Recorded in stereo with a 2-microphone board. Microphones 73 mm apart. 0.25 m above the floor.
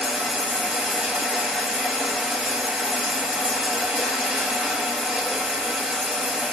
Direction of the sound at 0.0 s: 10° right (ahead or behind).